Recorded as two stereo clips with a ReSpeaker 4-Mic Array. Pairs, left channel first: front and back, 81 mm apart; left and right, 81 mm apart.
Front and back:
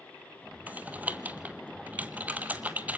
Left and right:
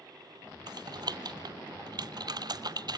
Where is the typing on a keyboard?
110° right, 0.9 m.